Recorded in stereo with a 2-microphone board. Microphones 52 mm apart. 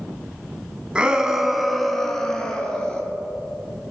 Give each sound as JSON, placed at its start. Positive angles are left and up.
{"t": 0.9, "sound": "a shout", "side_deg": -20, "distance_m": 1.5}